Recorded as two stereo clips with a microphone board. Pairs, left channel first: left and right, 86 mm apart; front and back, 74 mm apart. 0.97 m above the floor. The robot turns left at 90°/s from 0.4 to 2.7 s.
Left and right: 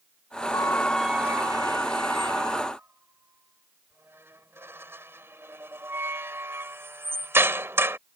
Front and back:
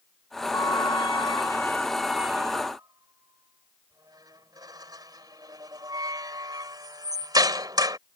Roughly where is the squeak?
Ahead left.